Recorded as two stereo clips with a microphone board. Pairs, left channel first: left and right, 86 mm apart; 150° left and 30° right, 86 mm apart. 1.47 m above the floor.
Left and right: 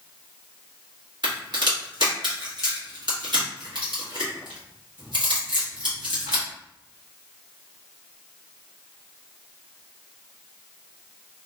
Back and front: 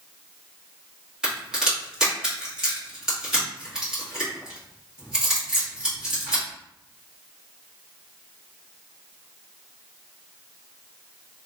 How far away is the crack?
About 1.2 m.